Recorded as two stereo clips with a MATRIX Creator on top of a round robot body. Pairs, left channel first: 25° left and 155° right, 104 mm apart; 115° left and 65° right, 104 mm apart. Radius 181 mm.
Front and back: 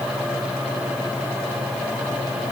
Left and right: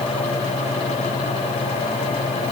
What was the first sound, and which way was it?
Only background noise.